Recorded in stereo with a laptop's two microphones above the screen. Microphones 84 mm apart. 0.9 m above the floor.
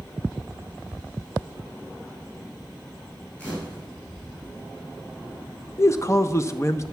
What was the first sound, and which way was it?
A camera shutter, 15° left (ahead or behind).